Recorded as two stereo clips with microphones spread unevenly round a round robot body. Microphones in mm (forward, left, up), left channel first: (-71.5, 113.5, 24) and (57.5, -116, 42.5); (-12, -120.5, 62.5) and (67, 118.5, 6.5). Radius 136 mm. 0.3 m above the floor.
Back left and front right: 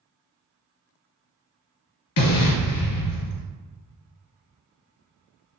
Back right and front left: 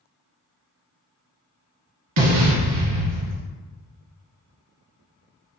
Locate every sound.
2.2 s an explosion: 95° left, 0.9 m